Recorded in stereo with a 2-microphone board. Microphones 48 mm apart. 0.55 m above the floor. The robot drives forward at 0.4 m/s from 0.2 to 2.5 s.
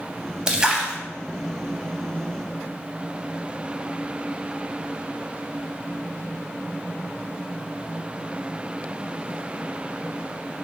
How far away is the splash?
About 0.7 m.